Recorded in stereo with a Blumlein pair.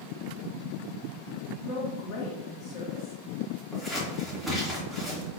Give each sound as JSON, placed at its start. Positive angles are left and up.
{"t": 1.6, "sound": "a woman speaking", "azimuth_deg": 35, "distance_m": 2.0}
{"t": 3.7, "sound": "scissors", "azimuth_deg": 0, "distance_m": 3.0}